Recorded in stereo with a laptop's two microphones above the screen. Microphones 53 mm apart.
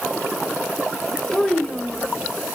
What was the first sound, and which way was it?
A child speaking, 15° left (ahead or behind).